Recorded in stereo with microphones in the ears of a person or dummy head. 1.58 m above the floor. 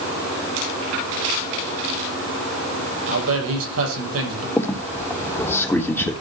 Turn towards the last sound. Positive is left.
turn(degrees=15)  # may be behind; listen again after turning